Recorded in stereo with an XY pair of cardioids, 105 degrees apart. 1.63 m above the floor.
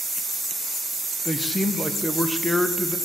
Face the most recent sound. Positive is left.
turn(degrees=0)